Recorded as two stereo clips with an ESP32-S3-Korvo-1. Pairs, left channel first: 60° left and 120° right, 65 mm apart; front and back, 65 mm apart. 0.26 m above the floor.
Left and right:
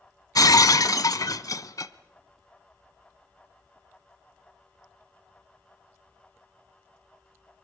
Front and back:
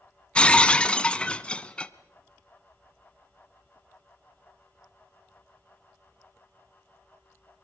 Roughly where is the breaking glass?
Left.